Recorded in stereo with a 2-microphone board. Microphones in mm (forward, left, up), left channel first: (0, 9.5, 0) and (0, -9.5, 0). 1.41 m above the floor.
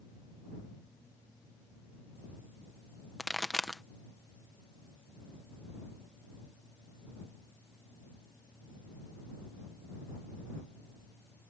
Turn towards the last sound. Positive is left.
turn(degrees=15)  # may be behind; listen again after turning